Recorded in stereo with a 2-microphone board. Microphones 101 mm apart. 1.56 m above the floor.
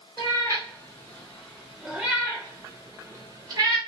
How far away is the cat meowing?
About 1.4 m.